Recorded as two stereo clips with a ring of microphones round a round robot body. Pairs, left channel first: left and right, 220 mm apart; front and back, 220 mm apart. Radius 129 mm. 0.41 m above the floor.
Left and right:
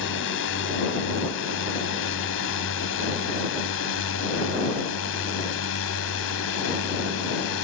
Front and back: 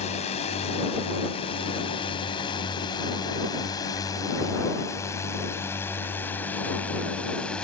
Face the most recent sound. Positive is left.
turn(degrees=85)